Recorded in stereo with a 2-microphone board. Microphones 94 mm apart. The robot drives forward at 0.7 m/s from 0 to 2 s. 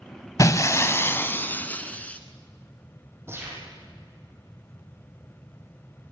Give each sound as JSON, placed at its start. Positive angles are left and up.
{"t": 0.4, "sound": "breaking glass", "side_deg": 35, "distance_m": 0.7}
{"t": 3.3, "sound": "a gunshot", "side_deg": -25, "distance_m": 5.5}